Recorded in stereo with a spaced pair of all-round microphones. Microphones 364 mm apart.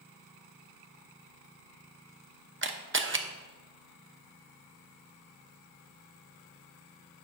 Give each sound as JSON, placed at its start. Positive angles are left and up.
{"t": 2.6, "sound": "a camera shutter", "side_deg": -35, "distance_m": 0.8}